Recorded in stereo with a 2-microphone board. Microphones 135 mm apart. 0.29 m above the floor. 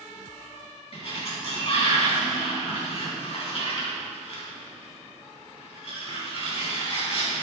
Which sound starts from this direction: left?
A sliding door, at 0.9 s.